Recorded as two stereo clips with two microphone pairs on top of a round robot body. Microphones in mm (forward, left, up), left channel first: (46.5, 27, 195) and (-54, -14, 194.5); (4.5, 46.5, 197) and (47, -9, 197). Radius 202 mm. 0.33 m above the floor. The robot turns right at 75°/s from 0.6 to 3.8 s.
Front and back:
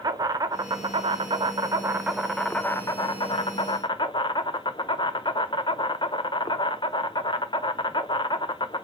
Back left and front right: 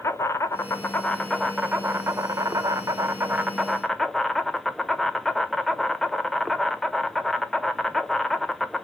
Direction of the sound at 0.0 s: 165° left.